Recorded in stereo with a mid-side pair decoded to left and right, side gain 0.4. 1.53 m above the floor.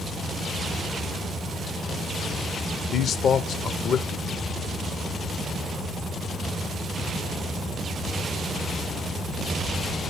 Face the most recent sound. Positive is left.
turn(degrees=65)